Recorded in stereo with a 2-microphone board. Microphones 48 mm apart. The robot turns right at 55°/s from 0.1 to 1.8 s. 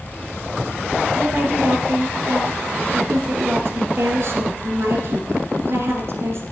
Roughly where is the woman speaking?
Behind right.